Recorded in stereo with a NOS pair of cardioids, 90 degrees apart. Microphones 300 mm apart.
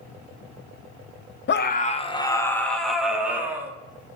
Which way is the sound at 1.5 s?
40° left.